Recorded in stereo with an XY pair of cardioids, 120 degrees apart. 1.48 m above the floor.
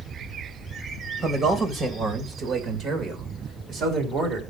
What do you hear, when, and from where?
1.2 s a man speaking: 40° right, 1.9 m; by 4.4 s 70° right, 3.5 m